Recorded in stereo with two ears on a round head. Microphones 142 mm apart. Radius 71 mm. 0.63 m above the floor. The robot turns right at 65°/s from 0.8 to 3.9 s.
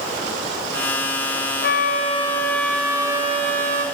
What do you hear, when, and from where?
1.6 s a flute: 110° left, 1.1 m; by 3.9 s 105° right, 1.1 m